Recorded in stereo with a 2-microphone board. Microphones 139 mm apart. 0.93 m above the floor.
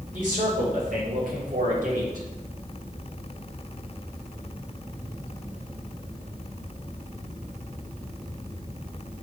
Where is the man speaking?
70° right (ahead or behind), 3 m.